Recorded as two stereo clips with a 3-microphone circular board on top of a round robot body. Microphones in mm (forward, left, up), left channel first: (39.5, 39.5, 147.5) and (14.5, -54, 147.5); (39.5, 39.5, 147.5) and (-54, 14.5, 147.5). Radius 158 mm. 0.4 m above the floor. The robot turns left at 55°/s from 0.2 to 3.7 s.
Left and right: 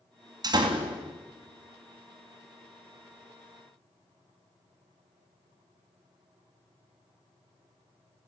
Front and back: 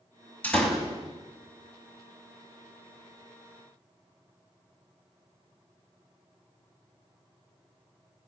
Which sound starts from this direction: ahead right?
A door slam, at 0.4 s.